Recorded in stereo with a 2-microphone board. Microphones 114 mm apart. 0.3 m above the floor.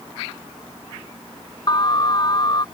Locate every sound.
1.7 s an alarm: 40° left (ahead or behind)